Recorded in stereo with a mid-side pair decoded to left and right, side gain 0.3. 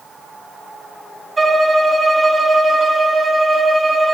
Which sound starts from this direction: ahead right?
A violin, at 1.4 s.